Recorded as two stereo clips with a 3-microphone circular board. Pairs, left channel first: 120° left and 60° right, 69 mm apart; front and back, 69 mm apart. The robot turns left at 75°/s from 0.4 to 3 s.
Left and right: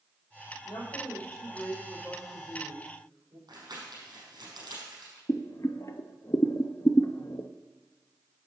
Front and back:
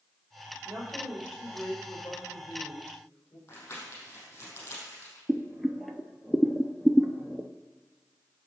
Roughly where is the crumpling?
Ahead right.